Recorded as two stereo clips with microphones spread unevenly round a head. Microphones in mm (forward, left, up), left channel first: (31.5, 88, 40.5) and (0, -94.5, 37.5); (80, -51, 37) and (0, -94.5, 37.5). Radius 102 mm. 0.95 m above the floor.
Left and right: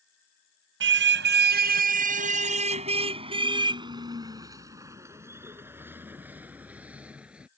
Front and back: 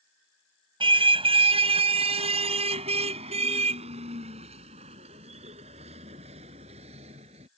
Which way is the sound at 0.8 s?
130° right.